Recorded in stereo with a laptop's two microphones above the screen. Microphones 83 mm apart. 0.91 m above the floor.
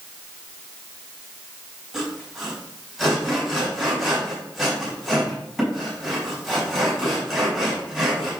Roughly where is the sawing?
Centre.